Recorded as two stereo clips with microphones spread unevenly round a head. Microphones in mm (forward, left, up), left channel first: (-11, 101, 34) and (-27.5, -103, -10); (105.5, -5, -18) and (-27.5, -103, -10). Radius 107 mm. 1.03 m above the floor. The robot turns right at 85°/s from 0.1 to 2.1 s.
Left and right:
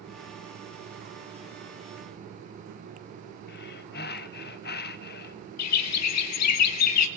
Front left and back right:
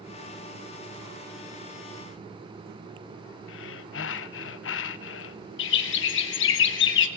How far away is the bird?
About 1.1 m.